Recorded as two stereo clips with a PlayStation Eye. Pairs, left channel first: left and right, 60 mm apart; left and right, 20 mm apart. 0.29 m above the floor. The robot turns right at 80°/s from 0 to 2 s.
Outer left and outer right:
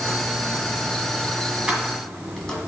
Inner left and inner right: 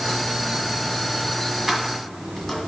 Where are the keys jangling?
15° right (ahead or behind), 1.5 m; by 2.6 s 10° left (ahead or behind), 1.5 m.